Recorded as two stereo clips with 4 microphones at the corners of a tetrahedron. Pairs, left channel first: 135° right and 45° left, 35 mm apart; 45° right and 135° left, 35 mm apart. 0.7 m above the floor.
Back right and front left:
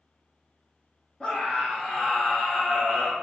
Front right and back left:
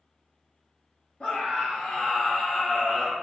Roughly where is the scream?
Right.